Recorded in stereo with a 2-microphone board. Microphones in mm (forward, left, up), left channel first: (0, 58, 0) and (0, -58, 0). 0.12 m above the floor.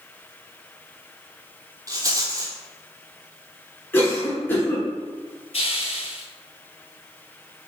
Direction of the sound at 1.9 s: 30° right (ahead or behind).